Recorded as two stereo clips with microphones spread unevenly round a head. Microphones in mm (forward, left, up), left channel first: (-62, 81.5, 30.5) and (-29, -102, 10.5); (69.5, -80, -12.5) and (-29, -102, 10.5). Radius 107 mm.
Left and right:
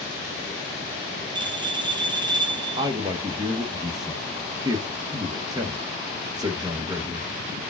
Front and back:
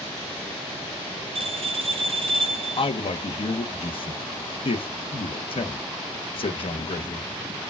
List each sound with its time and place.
1.4 s a bell: 145° right, 0.7 m
2.8 s a man speaking: 10° right, 0.9 m